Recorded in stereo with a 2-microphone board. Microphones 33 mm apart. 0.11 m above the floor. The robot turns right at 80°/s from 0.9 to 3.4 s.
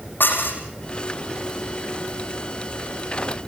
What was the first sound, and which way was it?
Dishes clattering, 75° left (ahead or behind).